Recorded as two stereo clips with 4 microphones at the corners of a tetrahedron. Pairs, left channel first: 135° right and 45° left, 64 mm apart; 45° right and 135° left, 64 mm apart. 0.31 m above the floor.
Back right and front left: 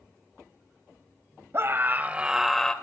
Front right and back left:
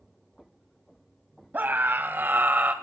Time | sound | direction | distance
1.5 | a scream | 80° left | 1.9 m